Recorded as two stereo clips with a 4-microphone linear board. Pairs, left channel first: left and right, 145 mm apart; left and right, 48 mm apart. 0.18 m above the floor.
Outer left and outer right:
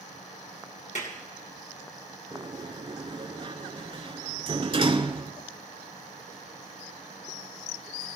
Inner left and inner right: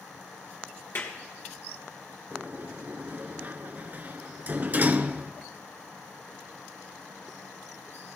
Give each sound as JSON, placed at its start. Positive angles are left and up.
{"t": 0.9, "sound": "a clap", "side_deg": 60, "distance_m": 3.0}
{"t": 2.3, "sound": "a sliding door", "side_deg": -40, "distance_m": 0.7}